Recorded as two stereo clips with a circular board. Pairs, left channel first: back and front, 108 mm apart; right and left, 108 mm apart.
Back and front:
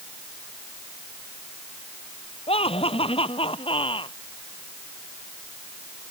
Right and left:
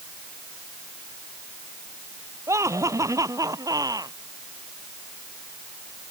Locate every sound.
2.5 s laughter: 150° left; by 4.2 s 145° left